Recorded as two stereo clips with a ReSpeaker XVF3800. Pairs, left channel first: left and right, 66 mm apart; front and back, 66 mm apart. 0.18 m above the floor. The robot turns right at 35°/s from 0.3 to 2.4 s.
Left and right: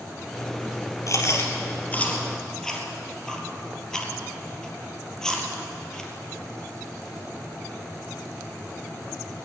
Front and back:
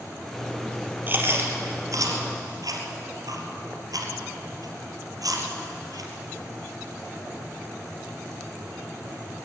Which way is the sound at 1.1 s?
120° left.